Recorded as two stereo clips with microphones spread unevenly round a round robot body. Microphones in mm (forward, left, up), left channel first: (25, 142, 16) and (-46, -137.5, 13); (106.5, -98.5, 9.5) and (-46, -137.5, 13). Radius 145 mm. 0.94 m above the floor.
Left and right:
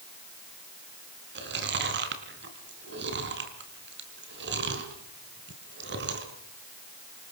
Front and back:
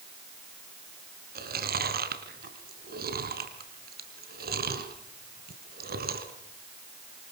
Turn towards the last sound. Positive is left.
turn(degrees=-155)